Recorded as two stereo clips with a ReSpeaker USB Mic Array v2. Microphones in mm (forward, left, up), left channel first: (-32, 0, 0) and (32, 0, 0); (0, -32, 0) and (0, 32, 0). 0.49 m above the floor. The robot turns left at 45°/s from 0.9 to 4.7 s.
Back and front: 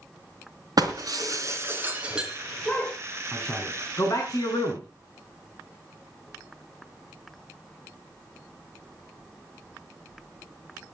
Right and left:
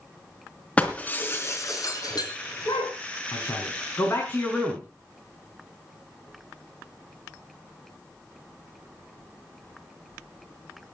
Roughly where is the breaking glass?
Ahead.